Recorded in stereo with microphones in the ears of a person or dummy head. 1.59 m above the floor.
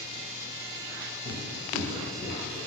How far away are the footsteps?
About 1.7 m.